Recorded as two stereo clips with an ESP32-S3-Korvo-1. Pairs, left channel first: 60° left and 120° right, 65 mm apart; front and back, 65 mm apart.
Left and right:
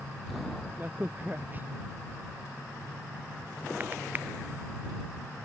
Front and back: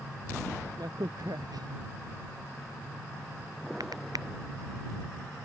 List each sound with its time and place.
0.8 s a crack: straight behind